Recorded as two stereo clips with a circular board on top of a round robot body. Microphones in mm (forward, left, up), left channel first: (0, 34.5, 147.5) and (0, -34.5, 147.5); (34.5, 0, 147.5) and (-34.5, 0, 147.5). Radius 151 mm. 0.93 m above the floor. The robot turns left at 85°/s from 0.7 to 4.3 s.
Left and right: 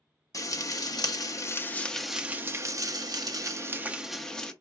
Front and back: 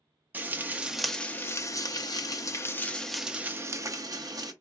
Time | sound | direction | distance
0.3 | frying | 115° left | 0.8 m